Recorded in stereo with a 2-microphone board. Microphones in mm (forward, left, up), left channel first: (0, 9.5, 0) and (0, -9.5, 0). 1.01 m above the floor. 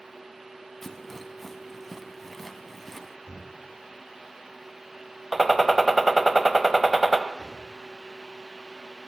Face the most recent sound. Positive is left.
turn(degrees=-50)  # may be behind; listen again after turning